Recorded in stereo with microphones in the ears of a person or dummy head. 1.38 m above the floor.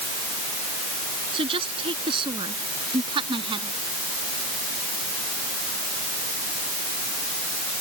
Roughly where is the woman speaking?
Right.